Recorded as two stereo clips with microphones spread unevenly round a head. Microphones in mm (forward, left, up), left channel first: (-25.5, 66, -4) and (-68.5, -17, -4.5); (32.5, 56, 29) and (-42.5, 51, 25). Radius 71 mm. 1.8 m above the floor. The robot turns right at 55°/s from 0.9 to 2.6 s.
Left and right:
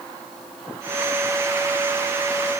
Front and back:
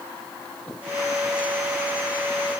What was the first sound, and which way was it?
Only background noise.